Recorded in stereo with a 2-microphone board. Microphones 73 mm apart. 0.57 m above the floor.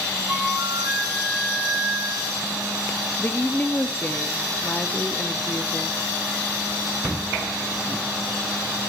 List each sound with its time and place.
0.3 s a flute: 5° right (ahead or behind), 3.5 m
3.2 s a woman speaking: 25° left (ahead or behind), 0.7 m